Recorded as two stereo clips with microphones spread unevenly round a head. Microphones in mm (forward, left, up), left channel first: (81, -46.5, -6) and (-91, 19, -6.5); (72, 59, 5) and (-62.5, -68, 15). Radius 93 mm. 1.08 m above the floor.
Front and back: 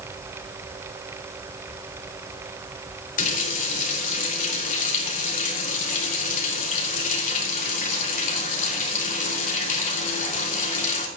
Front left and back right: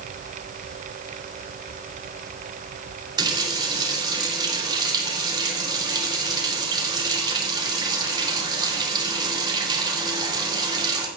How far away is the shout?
I don't hear a shout.